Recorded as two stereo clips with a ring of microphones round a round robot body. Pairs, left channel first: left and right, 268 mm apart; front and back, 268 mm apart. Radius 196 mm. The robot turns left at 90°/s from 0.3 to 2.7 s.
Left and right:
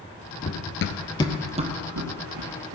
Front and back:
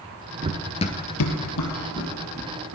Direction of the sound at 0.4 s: 135° left.